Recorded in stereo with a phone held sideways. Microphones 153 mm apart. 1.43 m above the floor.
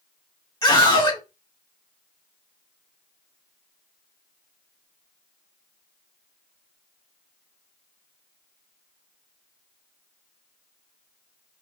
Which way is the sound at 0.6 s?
25° left (ahead or behind).